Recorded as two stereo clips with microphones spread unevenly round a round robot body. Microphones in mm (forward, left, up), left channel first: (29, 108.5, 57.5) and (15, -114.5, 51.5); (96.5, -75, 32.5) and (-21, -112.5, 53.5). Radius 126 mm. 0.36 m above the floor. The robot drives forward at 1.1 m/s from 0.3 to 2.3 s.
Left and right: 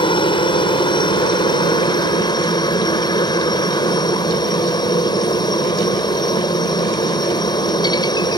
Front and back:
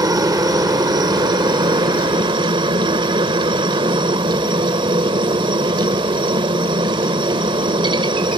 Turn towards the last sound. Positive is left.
turn(degrees=150)